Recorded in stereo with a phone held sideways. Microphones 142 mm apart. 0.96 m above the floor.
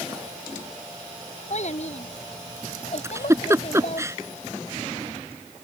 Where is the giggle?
20° right (ahead or behind).